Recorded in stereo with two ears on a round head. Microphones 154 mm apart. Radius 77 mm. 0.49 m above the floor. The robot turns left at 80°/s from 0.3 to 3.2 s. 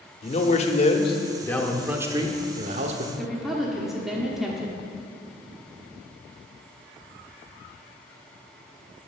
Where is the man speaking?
115° left, 0.8 m; by 3.1 s 105° right, 0.8 m.